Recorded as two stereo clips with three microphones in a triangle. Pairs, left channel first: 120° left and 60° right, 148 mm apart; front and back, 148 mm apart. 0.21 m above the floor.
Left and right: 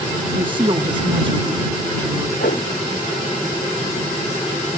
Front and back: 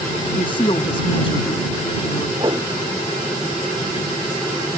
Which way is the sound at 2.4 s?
120° left.